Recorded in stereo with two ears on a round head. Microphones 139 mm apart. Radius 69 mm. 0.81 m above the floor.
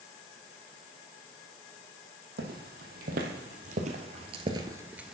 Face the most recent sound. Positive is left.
turn(degrees=0)  # may be behind; listen again after turning